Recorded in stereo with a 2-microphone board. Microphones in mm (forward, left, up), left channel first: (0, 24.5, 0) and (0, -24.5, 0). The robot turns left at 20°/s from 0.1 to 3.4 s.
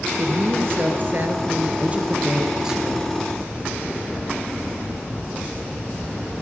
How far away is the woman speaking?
About 2.5 m.